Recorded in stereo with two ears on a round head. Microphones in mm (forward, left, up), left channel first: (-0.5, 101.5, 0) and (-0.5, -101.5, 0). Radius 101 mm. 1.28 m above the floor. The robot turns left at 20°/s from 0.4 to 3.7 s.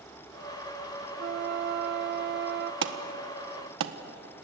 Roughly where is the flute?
Ahead right.